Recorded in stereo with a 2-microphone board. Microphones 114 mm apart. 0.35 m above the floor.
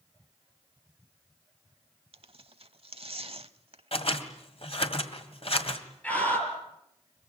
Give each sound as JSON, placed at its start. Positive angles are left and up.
{"t": 2.1, "sound": "tearing paper", "side_deg": -60, "distance_m": 0.8}
{"t": 3.9, "sound": "scissors", "side_deg": 55, "distance_m": 1.9}
{"t": 6.0, "sound": "a scream", "side_deg": 10, "distance_m": 6.0}